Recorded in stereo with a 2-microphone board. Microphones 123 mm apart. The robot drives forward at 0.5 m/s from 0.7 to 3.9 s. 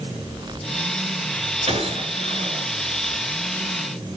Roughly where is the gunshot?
Right.